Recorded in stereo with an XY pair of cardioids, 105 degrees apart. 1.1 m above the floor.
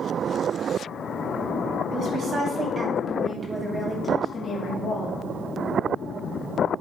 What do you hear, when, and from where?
1.9 s a woman speaking: 55° right, 3.5 m; by 5.2 s 55° left, 2.5 m